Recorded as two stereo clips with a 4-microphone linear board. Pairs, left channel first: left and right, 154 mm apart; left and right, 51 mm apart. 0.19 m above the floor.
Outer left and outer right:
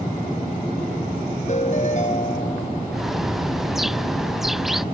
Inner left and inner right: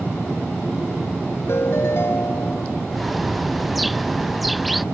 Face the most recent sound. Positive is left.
turn(degrees=0)  # may be behind; listen again after turning